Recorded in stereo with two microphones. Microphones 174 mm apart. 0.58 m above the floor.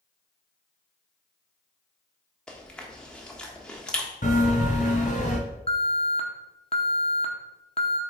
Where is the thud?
I don't hear a thud.